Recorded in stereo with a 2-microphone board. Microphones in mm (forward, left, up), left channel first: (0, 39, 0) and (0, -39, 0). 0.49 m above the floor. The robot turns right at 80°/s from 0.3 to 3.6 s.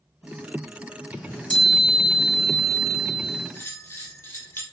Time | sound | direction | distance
1.2 | a chime | 20° left (ahead or behind) | 0.7 m
3.5 | a bell | 25° left (ahead or behind) | 0.6 m